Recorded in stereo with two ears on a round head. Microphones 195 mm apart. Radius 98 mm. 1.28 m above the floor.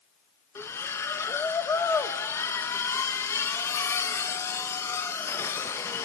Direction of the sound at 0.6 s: 10° left (ahead or behind).